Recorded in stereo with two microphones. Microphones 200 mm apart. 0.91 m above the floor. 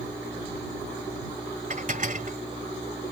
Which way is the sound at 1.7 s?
40° right (ahead or behind).